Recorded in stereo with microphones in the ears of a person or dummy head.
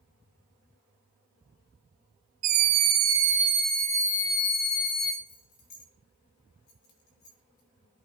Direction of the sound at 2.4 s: 45° right (ahead or behind).